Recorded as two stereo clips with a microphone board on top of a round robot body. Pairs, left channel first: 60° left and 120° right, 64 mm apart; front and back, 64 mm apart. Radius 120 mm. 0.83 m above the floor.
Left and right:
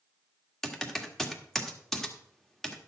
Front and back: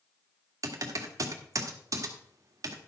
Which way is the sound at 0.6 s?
145° left.